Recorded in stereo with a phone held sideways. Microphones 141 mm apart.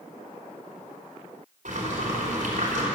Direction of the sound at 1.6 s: 70° right (ahead or behind).